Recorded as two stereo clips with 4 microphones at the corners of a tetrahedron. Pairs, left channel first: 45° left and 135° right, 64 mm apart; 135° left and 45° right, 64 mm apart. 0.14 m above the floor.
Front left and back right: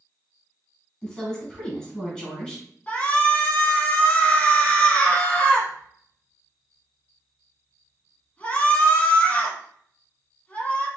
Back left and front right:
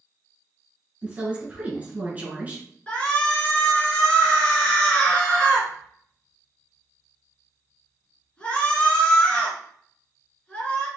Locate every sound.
1.0 s a woman speaking: 20° right, 1.7 m
2.9 s a shout: 85° left, 1.1 m